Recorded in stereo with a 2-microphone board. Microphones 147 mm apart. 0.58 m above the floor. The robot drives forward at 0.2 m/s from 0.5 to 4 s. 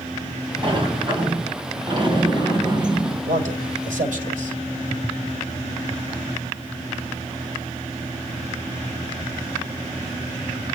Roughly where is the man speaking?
Right.